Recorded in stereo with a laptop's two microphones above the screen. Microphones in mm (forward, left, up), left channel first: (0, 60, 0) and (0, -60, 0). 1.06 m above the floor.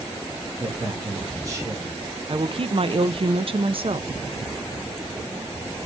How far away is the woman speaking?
About 0.6 m.